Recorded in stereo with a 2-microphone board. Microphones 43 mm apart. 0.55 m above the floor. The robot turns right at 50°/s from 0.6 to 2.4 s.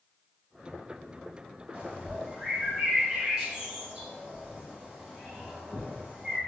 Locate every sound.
1.7 s a bird: 40° right (ahead or behind), 1.4 m; by 6.4 s 25° right (ahead or behind), 1.4 m